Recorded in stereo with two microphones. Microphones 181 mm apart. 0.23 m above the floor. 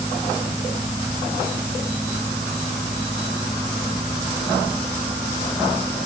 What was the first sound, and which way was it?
Only background noise.